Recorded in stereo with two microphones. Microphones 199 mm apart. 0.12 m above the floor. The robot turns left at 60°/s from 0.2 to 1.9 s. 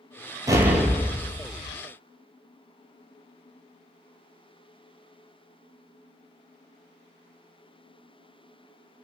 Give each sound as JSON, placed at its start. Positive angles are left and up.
{"t": 0.5, "sound": "an explosion", "azimuth_deg": -160, "distance_m": 0.5}